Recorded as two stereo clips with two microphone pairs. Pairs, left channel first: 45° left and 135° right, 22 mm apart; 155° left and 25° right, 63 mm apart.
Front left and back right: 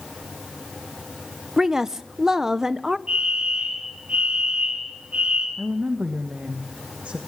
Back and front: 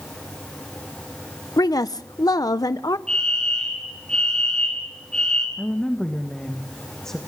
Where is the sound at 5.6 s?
120° right, 1.5 m.